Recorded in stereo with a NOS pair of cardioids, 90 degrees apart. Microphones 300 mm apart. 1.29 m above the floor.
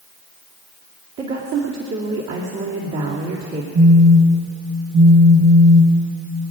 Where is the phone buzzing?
45° right, 1.9 m.